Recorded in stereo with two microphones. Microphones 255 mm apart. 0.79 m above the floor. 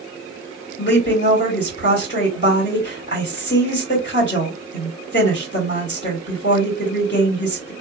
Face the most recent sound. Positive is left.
turn(degrees=40)  # may be behind; listen again after turning